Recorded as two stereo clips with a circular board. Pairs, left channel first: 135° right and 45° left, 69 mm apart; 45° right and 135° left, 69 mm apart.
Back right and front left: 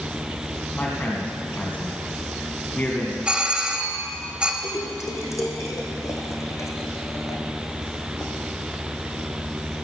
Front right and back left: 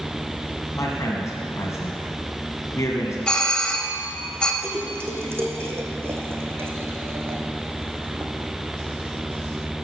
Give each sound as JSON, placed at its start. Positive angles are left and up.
{"t": 0.8, "sound": "a man speaking", "azimuth_deg": -75, "distance_m": 2.0}
{"t": 3.3, "sound": "a doorbell", "azimuth_deg": 5, "distance_m": 1.4}
{"t": 4.6, "sound": "a splash", "azimuth_deg": -175, "distance_m": 2.0}